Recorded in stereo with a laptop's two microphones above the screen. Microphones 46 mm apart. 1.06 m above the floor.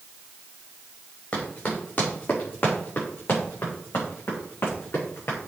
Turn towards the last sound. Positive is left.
turn(degrees=65)  # may be behind; listen again after turning